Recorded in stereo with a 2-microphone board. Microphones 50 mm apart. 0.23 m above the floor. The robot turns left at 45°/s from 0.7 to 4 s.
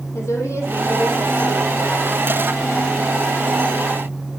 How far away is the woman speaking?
About 7.5 m.